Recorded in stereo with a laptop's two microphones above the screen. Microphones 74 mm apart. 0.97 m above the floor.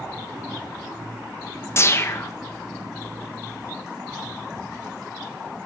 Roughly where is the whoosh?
Left.